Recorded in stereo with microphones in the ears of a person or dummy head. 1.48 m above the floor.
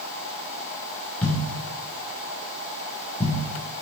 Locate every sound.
1.2 s a thud: 5° left (ahead or behind), 1.9 m